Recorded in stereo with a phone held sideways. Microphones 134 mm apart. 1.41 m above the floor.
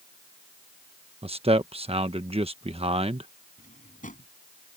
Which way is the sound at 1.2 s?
45° right (ahead or behind).